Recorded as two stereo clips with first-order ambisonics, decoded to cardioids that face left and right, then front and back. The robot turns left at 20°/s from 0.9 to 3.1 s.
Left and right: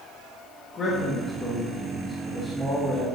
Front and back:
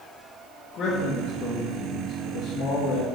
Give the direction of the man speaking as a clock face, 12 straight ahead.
11 o'clock.